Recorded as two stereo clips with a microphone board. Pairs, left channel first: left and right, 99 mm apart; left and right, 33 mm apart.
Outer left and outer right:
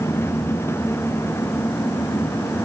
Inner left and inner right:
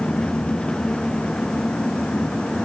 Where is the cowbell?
I don't hear a cowbell.